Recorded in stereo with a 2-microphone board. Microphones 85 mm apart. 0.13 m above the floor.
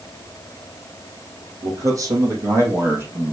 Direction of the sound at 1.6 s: 45° right (ahead or behind).